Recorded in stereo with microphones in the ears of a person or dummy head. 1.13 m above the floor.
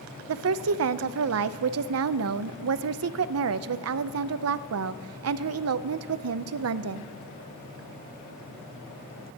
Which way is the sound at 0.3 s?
70° right (ahead or behind).